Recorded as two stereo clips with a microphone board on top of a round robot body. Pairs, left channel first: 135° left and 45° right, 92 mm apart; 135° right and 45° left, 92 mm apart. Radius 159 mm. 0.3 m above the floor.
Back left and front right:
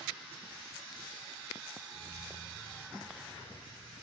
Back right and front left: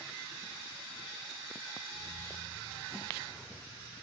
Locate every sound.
1.9 s keys jangling: 85° right, 4 m